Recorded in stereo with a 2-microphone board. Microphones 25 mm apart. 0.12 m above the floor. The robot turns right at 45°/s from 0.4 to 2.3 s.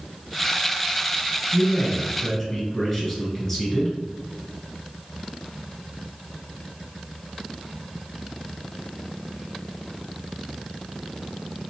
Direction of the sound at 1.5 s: 125° left.